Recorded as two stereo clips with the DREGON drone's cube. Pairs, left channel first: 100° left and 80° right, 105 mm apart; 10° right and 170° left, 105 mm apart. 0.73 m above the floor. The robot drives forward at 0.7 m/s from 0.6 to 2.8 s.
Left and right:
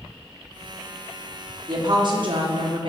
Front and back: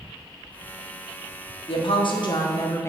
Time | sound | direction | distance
1.7 | a woman speaking | 35° right | 1.3 m